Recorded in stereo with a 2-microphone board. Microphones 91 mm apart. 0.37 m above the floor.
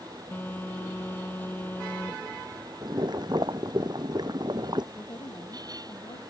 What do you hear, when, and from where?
0.3 s a phone buzzing: 20° left (ahead or behind)
2.8 s boiling: 50° right (ahead or behind)
4.9 s a woman speaking: 55° left (ahead or behind)